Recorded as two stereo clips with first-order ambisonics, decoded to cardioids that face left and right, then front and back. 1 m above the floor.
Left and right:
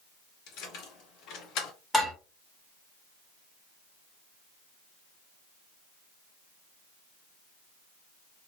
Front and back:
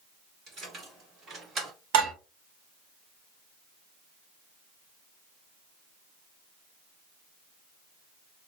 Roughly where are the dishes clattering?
Behind.